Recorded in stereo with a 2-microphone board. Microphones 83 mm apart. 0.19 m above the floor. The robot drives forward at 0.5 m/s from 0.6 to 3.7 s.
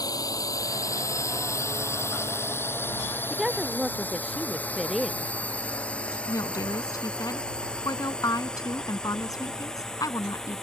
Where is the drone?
45° left (ahead or behind); by 10.7 s 5° left (ahead or behind).